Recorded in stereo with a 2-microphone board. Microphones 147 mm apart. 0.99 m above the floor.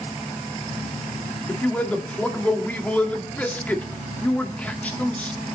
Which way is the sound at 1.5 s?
10° left (ahead or behind).